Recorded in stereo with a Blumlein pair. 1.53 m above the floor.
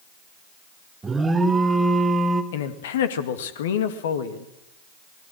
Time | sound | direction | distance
1.0 | an alarm | 10° right | 1.6 m
2.5 | a man speaking | 60° left | 2 m